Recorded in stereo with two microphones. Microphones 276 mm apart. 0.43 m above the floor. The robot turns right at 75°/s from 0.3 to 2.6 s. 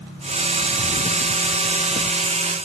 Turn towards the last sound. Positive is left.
No sound to turn to.